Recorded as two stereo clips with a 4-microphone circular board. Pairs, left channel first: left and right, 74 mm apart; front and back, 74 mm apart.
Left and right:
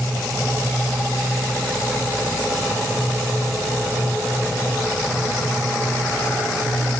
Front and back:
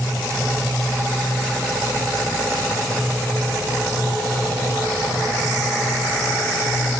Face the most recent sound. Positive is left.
No sound to turn to.